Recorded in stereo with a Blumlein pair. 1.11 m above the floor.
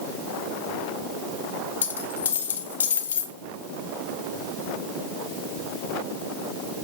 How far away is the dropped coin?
About 1.1 m.